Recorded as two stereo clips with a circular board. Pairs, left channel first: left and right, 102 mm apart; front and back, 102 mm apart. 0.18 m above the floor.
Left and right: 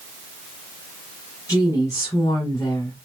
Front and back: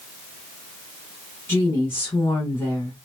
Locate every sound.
1.5 s a woman speaking: 60° left, 1.3 m